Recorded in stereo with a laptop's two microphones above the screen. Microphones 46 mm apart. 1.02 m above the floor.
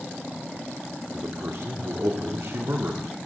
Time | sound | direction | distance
1.1 | a man speaking | 75° right (ahead or behind) | 2 m